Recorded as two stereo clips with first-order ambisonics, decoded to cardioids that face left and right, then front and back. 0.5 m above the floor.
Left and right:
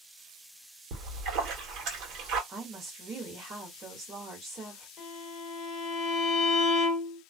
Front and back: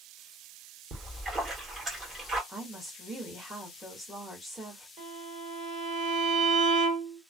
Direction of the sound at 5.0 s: 155° left.